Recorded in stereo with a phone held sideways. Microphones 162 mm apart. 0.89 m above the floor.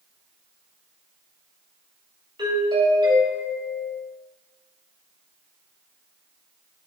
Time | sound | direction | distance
2.4 | a doorbell | 30° right (ahead or behind) | 3 m